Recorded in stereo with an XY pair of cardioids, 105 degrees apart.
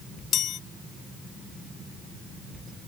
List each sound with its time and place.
0.3 s a chime: 65° left